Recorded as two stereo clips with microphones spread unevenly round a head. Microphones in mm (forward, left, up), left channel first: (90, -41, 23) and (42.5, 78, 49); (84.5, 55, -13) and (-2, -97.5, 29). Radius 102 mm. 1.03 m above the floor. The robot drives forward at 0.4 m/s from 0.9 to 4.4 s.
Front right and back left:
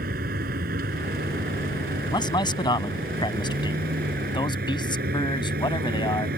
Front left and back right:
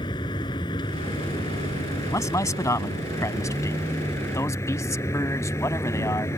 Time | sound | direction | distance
0.0 | a vehicle | 130° left | ?
2.1 | a man speaking | 15° right | ?